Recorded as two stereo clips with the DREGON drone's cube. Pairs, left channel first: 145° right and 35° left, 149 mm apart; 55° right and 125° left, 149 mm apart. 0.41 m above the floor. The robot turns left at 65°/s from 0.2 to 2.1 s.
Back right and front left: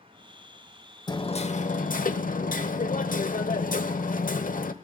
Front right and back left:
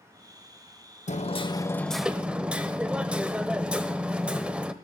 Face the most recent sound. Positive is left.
turn(degrees=-155)